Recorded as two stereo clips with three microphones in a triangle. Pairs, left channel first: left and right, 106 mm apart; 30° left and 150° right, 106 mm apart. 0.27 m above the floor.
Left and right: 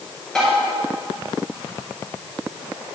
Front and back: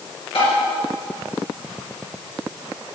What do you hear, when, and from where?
0.3 s tapping: 5° left, 4 m